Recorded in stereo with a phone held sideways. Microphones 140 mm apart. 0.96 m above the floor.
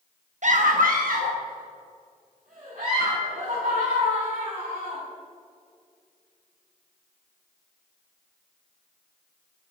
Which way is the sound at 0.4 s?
60° right (ahead or behind).